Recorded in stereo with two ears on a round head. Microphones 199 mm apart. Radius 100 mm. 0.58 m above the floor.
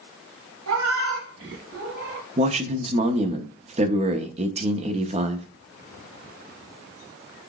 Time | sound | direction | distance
0.7 | a cat meowing | 80° right | 1.2 m
2.4 | a man speaking | 30° right (ahead or behind) | 0.6 m